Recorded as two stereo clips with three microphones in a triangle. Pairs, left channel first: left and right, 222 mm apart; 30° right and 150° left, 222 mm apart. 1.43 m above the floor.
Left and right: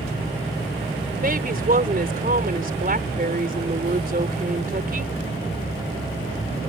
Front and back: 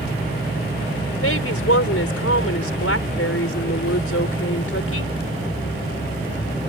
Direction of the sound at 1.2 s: 40° right.